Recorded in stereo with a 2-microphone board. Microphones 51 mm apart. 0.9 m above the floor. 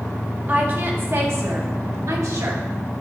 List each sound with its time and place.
0.5 s a woman speaking: 35° right (ahead or behind), 1.7 m; by 2.6 s 75° right (ahead or behind), 2 m